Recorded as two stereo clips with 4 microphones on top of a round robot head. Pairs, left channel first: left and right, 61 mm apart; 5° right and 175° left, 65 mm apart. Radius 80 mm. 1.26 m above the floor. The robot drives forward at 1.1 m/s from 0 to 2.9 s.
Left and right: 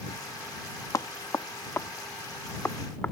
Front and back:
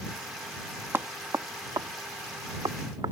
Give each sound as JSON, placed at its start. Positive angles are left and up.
{"t": 0.9, "sound": "knocking", "azimuth_deg": 115}